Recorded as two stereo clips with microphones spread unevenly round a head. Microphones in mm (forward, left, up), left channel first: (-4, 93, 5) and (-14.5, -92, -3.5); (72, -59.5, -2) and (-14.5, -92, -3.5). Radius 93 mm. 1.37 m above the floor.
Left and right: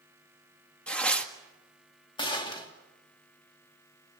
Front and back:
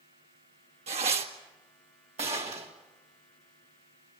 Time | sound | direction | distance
0.9 | tearing paper | 170° left | 1.7 m
2.2 | a gunshot | 155° left | 3 m